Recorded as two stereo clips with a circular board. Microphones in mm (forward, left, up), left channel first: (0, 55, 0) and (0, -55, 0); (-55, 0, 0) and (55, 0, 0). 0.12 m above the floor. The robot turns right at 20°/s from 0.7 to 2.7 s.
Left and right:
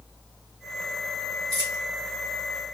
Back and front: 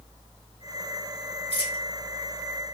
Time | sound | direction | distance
1.5 | a dropped coin | 140° right | 1.7 m